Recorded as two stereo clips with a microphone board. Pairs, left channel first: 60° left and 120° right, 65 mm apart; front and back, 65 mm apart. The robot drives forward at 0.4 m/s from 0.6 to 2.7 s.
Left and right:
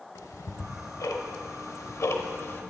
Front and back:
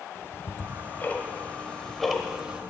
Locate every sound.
0.1 s ticking: 45° left, 1.0 m; by 2.6 s 105° left, 0.8 m